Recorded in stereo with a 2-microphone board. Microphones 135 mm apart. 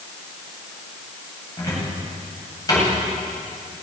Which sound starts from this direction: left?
A cupboard door, at 1.6 s.